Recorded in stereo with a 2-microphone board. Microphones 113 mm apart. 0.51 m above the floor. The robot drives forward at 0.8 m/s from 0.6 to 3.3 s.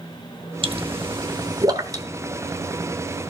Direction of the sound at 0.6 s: 50° right (ahead or behind).